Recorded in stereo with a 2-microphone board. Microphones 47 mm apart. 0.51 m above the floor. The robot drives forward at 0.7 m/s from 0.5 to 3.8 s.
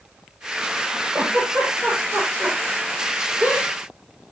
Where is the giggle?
45° right (ahead or behind), 7 m; by 3.7 s 35° right (ahead or behind), 8.5 m.